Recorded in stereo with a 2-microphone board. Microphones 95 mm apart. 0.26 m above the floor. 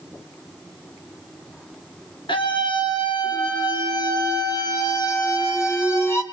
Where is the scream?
60° left (ahead or behind), 4.5 m; by 6.2 s 30° left (ahead or behind), 3.5 m.